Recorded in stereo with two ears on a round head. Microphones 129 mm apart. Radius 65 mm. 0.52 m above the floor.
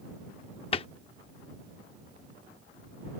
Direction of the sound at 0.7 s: 40° left (ahead or behind).